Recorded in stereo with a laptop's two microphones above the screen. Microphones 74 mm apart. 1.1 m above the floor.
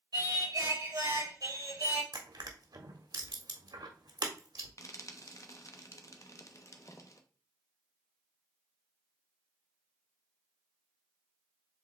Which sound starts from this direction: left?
Frying, at 4.8 s.